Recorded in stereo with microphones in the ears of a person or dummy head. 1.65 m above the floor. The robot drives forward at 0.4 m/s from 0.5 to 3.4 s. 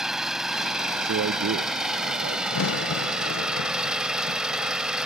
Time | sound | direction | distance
0.0 | an engine running | 5° right (ahead or behind) | ?
1.0 | a man speaking | 65° right (ahead or behind) | ?
2.5 | a crack | 80° left | ?